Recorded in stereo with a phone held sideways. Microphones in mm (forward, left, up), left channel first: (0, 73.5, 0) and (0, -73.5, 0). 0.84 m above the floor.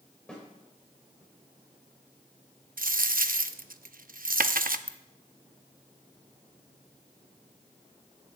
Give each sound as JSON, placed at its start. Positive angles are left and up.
{"t": 0.3, "sound": "a snare drum", "side_deg": 5, "distance_m": 4.0}
{"t": 2.8, "sound": "a dropped coin", "side_deg": -75, "distance_m": 0.6}
{"t": 4.9, "sound": "a ringtone", "side_deg": -30, "distance_m": 0.8}